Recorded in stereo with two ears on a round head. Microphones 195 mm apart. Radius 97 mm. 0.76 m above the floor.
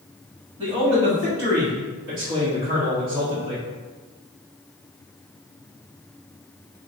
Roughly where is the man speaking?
Right.